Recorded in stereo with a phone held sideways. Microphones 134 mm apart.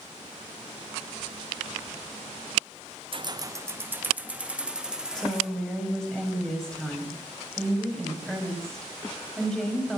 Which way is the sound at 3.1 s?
40° right (ahead or behind).